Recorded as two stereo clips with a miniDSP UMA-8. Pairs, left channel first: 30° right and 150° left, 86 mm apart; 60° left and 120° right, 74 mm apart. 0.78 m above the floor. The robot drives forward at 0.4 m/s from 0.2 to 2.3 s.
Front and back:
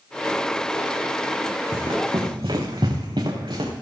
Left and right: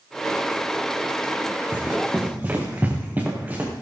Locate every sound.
1.7 s running footsteps: 175° left, 3 m